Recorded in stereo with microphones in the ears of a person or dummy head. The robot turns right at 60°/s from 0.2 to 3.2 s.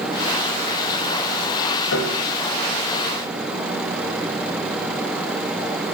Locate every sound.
1.9 s a piano: 70° left (ahead or behind), 2 m; by 2.3 s 55° left (ahead or behind), 2 m